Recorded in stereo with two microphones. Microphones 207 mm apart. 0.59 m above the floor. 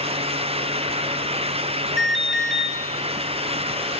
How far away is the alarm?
About 2 m.